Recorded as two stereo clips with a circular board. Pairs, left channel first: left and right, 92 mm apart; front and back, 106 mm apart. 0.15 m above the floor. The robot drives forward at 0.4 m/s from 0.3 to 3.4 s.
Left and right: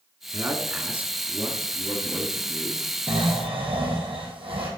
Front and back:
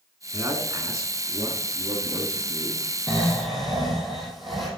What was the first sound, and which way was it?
A man speaking, 140° right.